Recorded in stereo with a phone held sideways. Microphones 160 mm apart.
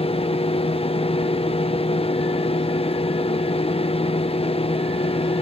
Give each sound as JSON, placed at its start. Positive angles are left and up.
{"t": 0.0, "sound": "a fan", "side_deg": 40, "distance_m": 0.7}